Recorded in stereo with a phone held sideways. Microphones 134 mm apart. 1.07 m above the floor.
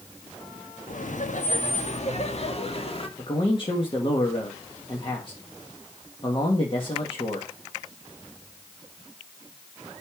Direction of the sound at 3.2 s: 40° left (ahead or behind).